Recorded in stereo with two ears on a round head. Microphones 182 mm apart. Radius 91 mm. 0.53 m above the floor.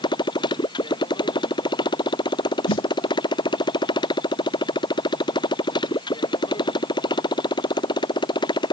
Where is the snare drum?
65° left (ahead or behind).